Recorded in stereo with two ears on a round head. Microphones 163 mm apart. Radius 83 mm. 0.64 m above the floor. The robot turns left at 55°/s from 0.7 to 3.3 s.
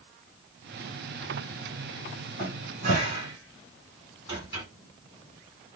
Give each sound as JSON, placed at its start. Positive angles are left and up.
{"t": 2.4, "sound": "a cupboard door", "side_deg": -60, "distance_m": 2.0}